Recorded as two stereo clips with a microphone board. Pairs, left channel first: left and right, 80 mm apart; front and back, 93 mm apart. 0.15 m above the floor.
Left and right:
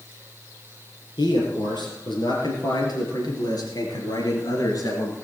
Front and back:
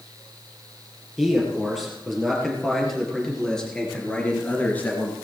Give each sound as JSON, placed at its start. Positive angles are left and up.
{"t": 1.2, "sound": "a man speaking", "azimuth_deg": 95, "distance_m": 4.5}